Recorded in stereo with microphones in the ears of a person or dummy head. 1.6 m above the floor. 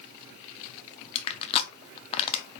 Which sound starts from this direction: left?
Crushing, at 1.1 s.